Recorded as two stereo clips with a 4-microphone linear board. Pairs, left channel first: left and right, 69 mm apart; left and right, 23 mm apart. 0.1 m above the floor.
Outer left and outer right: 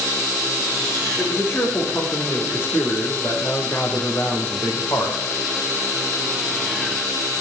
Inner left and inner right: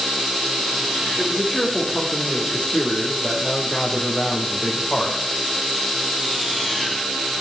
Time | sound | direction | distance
1.2 | a man speaking | 30° left (ahead or behind) | 6.5 m